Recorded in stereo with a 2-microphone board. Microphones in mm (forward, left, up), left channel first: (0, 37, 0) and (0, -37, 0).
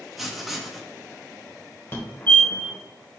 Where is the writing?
Centre (ahead or behind), 0.8 m.